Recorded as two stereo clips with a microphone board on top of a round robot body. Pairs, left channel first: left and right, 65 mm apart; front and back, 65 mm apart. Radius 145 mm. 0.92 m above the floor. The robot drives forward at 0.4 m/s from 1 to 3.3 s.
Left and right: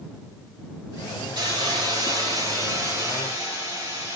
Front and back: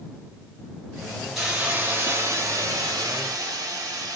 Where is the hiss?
95° right, 0.5 m; by 4.2 s 155° right, 1.0 m.